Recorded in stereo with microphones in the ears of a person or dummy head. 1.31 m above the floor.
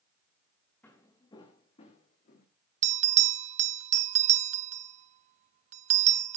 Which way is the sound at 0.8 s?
10° left (ahead or behind).